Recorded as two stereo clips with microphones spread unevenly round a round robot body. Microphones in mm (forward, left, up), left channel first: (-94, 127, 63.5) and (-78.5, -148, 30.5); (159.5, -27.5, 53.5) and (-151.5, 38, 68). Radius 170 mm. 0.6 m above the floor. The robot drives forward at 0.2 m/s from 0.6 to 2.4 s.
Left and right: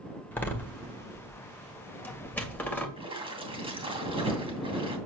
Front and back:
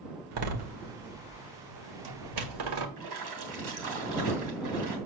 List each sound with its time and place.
0.3 s a door slam: straight behind, 1.9 m
3.0 s a splash: 160° right, 2.5 m